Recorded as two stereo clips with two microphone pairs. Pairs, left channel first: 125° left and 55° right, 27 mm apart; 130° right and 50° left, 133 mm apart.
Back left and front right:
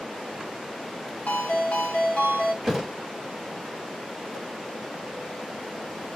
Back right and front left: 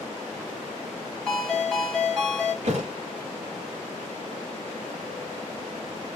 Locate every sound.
1.3 s a ringtone: 140° left, 1.2 m
2.6 s a thud: 30° left, 0.9 m